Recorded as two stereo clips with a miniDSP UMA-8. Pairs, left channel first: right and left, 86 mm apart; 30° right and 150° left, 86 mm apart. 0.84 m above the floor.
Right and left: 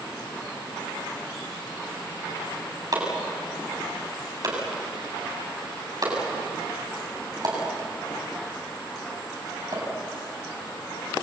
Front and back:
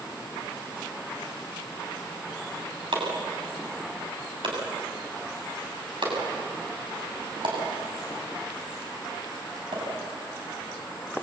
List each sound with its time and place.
2.9 s chopping: 130° left, 7 m